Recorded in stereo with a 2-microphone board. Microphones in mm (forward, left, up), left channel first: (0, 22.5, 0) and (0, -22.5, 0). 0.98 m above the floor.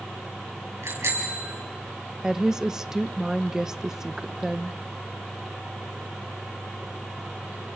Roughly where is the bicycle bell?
Right.